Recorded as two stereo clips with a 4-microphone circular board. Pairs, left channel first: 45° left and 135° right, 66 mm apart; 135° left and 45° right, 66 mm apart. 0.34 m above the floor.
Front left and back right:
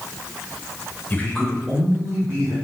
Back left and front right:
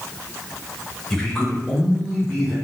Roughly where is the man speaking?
Ahead left.